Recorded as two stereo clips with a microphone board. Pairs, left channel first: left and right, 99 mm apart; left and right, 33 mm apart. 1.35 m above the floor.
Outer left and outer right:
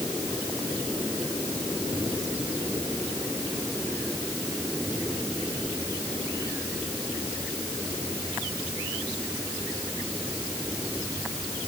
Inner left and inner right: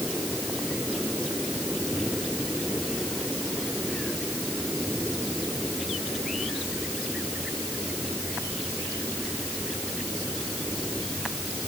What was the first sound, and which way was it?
Only background noise.